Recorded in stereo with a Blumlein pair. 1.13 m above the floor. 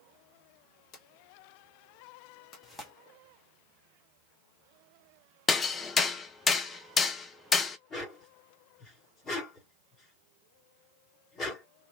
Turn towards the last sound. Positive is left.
turn(degrees=25)